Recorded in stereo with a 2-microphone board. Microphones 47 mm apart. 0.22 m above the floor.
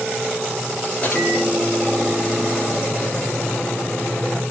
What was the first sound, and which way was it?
A microwave, 30° left (ahead or behind).